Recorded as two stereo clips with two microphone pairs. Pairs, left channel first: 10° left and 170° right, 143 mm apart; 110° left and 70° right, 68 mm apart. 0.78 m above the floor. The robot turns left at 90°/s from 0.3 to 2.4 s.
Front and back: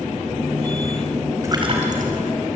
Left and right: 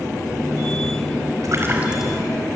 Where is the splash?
100° right, 4.5 m; by 2.2 s 170° right, 4.5 m.